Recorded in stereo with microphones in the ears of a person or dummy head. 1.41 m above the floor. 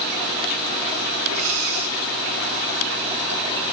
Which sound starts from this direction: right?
Breathing, at 1.3 s.